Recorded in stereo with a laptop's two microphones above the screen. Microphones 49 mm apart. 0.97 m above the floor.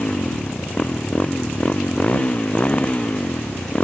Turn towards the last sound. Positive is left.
turn(degrees=30)  # may be behind; listen again after turning